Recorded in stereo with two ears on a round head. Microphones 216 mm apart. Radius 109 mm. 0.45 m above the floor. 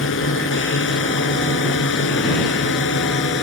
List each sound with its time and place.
0.0 s a drone: 55° left (ahead or behind); by 3.4 s 50° left (ahead or behind)